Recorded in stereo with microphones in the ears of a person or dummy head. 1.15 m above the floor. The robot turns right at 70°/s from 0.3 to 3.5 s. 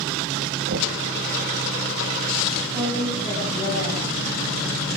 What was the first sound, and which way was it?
Knocking, 65° right (ahead or behind).